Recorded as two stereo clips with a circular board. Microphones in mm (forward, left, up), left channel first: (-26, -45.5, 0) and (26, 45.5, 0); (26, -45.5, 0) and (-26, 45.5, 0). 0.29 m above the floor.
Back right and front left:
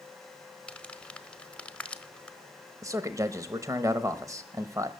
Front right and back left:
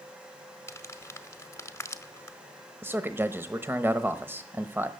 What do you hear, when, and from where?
0.7 s crumpling: 55° right, 1.2 m
2.8 s a man speaking: 70° left, 1.0 m